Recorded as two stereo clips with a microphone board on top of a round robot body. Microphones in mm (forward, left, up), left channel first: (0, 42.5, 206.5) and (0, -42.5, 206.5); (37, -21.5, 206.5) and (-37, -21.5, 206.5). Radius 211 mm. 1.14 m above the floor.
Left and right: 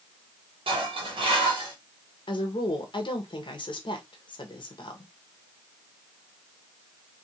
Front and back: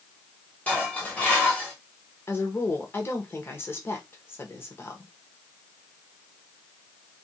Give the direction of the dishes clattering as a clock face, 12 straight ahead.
2 o'clock.